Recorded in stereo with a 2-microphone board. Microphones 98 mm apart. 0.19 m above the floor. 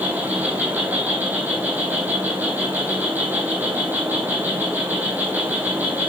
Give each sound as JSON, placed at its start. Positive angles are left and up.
{"t": 0.0, "sound": "an insect", "side_deg": -20, "distance_m": 2.0}